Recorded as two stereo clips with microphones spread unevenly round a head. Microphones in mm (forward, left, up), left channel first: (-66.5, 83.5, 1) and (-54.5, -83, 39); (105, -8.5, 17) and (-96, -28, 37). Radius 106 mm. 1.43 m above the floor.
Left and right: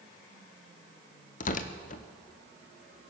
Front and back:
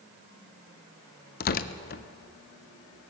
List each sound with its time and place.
1.4 s tearing paper: 50° left, 0.5 m